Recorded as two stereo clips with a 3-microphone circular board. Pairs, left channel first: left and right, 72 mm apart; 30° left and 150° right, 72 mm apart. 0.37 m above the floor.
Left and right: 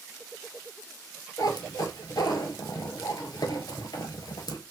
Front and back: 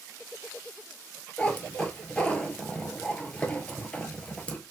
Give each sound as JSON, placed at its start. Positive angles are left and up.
{"t": 1.4, "sound": "a cat meowing", "azimuth_deg": 105, "distance_m": 0.8}